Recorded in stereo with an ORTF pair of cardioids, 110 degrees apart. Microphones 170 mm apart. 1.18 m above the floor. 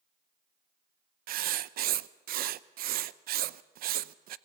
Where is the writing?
60° right, 0.7 m.